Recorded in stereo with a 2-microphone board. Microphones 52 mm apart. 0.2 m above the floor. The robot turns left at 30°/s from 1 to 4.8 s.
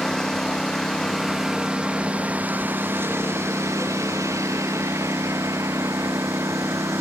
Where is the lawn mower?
10° left; by 7.0 s 105° right.